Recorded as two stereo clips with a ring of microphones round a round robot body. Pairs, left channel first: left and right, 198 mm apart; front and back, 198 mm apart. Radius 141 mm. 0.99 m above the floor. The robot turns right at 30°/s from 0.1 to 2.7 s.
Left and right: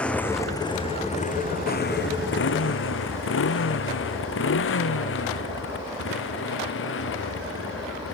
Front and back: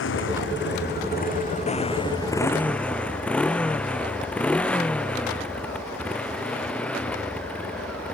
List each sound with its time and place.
0.0 s a motorcycle: 5° left; by 8.2 s 85° left